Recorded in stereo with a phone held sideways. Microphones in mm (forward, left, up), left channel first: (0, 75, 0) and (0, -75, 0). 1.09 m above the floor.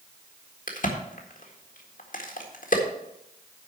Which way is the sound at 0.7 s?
65° left (ahead or behind).